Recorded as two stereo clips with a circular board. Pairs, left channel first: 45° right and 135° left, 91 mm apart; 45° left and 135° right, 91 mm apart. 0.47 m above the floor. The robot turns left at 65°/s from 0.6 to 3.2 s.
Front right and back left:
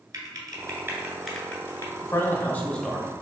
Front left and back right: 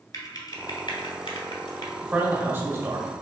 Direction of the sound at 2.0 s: 65° right.